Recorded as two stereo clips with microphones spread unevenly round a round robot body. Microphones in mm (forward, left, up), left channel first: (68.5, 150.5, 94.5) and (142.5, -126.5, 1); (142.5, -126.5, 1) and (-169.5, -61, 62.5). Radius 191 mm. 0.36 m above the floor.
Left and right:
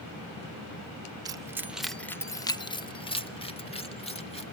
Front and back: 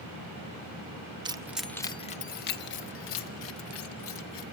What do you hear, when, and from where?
1.2 s keys jangling: 110° right, 0.7 m; by 4.4 s 30° left, 2 m